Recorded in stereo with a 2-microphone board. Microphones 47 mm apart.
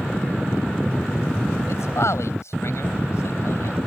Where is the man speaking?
75° left (ahead or behind); by 3.8 s 70° left (ahead or behind).